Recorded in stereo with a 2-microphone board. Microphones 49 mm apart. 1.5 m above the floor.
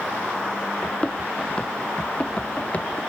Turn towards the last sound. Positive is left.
turn(degrees=30)  # may be behind; listen again after turning